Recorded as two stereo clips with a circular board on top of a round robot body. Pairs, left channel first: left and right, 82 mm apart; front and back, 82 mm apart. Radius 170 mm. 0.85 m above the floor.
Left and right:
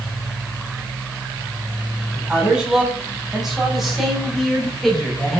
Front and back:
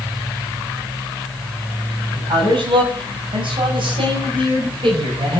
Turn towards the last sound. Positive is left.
turn(degrees=175)